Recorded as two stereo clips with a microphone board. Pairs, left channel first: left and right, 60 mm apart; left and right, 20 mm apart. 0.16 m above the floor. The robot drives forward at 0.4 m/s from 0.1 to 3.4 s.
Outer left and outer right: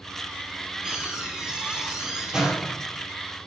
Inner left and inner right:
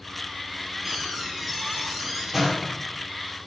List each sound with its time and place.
0.8 s a door slam: 15° right (ahead or behind), 3 m; by 2.9 s 10° right (ahead or behind), 3.5 m